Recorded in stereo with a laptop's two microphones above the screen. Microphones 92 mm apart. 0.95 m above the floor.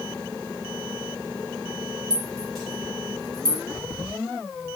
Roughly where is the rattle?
Centre.